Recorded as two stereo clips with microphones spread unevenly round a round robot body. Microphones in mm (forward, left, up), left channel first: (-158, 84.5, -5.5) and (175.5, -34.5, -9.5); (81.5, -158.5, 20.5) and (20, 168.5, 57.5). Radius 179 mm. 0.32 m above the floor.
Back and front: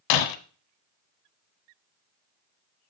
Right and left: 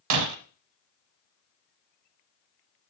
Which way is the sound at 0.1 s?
145° left.